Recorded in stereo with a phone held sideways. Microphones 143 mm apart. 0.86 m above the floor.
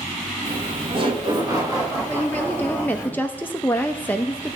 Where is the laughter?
45° right (ahead or behind), 1.1 m; by 3.1 s 10° right (ahead or behind), 2.0 m.